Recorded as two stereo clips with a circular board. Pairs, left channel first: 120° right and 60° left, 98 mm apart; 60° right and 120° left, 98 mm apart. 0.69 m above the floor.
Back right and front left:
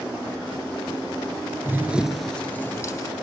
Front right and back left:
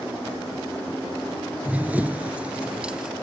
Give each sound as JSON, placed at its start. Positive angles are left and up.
{"t": 1.6, "sound": "running footsteps", "azimuth_deg": 65, "distance_m": 0.7}